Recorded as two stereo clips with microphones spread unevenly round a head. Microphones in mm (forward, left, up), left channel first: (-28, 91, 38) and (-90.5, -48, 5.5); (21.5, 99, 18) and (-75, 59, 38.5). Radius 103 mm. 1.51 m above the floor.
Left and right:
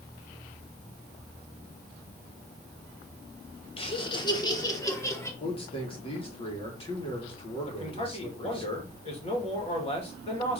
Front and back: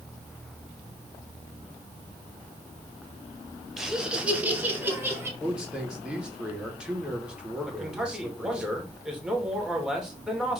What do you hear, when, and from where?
3.8 s laughter: 115° left, 1.7 m; by 5.3 s 135° left, 2.5 m
5.4 s a man speaking: 120° left, 2.5 m
7.7 s a man speaking: 120° left, 2.5 m